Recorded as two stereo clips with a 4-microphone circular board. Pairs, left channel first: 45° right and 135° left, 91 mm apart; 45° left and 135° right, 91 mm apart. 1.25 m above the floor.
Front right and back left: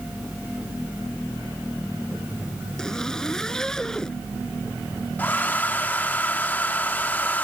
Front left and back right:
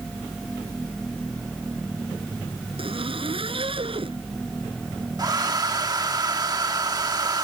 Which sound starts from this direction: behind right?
A zipper, at 2.8 s.